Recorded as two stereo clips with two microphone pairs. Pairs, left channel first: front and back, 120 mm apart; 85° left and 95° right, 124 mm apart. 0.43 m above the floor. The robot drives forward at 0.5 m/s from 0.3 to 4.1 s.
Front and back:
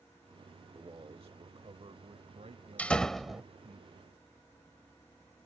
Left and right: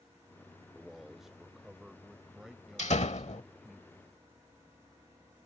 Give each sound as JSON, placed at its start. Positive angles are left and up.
{"t": 0.8, "sound": "a man speaking", "azimuth_deg": 180}
{"t": 2.8, "sound": "a door slam", "azimuth_deg": 75}